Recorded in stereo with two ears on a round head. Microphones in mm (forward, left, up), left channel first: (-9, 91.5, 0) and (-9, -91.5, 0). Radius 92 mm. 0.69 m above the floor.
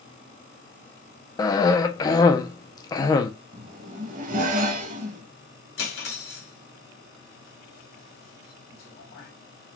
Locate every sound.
1.4 s a cough: 20° left (ahead or behind), 0.5 m
3.5 s a zipper: 40° right (ahead or behind), 0.6 m
5.8 s cutlery clinking: 60° left (ahead or behind), 2 m